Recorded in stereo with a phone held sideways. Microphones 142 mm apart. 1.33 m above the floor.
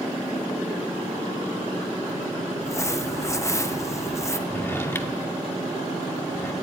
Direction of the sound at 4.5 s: 15° left (ahead or behind).